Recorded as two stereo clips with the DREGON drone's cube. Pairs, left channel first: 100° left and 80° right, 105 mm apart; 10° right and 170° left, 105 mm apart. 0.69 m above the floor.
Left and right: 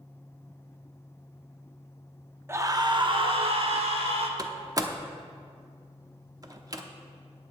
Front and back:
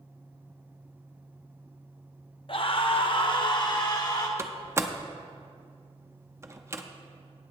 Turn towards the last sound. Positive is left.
turn(degrees=-125)